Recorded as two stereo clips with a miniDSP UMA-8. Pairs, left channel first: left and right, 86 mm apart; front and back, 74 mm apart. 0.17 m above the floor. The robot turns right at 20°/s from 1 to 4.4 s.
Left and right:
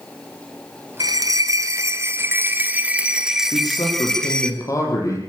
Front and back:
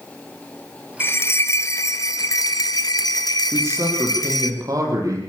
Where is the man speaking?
125° left, 6.5 m; by 5.2 s 140° left, 6.5 m.